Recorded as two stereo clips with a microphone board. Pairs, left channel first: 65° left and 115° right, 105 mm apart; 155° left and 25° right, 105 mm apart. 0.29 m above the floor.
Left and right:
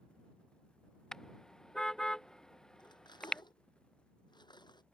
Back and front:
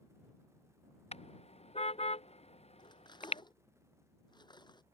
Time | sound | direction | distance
1.1 | a car horn | 150° left | ?
2.8 | cutlery clinking | 115° left | ?